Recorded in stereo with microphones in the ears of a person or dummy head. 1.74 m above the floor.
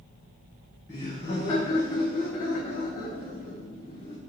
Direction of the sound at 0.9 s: 15° left (ahead or behind).